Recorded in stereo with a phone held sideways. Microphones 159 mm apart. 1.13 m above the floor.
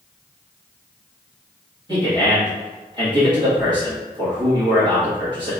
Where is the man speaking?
30° right (ahead or behind), 1.4 m.